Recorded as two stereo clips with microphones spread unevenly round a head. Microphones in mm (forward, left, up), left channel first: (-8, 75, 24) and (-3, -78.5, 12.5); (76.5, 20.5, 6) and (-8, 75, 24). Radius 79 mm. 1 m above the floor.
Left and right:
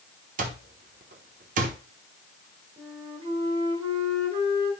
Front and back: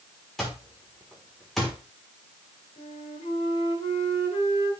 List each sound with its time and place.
0.4 s an alarm clock: 125° right, 1.2 m
2.8 s a flute: 30° right, 2.5 m